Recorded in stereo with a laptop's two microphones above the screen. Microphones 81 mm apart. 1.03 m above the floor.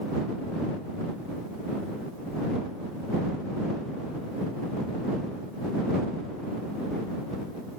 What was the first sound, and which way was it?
Only background noise.